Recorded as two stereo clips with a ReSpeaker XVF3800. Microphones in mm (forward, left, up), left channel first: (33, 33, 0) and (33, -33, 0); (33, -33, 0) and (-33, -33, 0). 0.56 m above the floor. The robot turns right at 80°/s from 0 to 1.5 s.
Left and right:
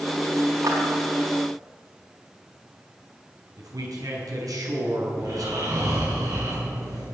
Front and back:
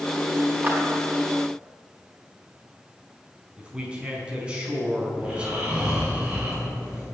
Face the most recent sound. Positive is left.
turn(degrees=-105)